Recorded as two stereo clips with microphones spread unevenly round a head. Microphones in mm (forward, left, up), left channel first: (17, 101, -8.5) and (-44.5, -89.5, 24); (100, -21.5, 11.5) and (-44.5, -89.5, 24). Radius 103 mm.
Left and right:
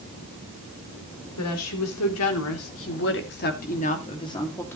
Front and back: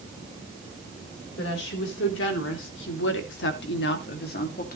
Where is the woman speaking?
65° left, 4 m; by 4.8 s 10° right, 2.5 m.